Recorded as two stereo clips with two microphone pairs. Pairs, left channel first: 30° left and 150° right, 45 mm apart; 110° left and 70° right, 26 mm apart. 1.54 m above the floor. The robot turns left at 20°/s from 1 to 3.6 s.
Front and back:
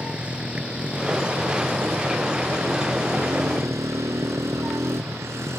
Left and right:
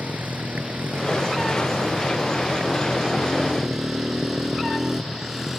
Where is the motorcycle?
85° right; by 5.6 s 145° right.